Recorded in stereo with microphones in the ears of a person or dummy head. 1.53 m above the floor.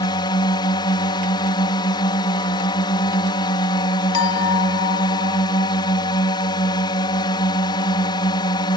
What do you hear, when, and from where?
0.0 s a drone: 20° left (ahead or behind)
4.1 s a clink: 80° left